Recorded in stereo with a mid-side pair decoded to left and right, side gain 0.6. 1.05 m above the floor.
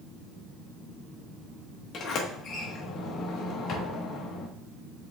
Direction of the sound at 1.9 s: 50° left.